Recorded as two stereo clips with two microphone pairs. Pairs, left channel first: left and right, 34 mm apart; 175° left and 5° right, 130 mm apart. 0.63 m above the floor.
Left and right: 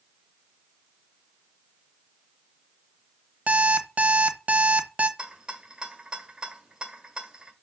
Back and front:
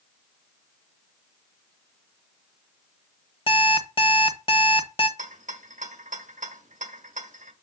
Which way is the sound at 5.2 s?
20° right.